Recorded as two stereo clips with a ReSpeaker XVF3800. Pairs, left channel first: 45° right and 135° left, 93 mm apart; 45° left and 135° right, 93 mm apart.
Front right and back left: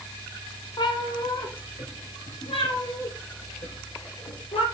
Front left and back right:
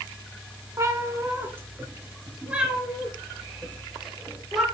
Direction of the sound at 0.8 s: 80° right.